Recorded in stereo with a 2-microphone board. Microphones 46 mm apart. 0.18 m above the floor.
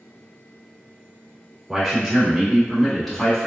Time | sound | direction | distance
1.7 | a man speaking | centre (ahead or behind) | 1.6 m